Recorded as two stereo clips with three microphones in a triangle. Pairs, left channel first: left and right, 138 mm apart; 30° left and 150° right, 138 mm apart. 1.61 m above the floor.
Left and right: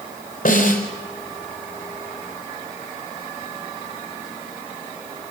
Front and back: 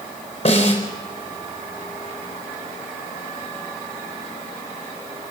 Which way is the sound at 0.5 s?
80° left.